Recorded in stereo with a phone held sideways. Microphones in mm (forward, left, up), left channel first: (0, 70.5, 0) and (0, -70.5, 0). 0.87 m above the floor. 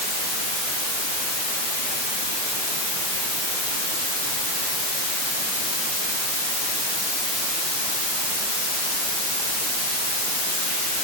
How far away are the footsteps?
No footsteps in this recording.